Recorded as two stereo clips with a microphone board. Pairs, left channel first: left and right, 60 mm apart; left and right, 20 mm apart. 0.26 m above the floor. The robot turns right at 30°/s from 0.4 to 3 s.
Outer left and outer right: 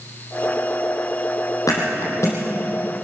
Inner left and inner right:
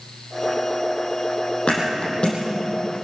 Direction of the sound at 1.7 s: 70° left (ahead or behind).